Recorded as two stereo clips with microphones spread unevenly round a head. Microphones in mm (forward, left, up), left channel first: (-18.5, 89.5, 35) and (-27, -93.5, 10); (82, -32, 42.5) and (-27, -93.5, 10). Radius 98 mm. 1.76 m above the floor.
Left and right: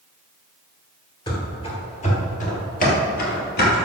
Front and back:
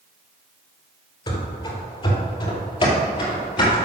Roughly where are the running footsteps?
Ahead left.